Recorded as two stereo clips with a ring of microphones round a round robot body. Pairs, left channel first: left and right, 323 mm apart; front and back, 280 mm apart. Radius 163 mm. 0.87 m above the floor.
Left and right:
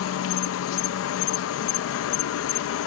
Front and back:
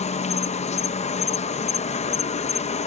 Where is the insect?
60° left.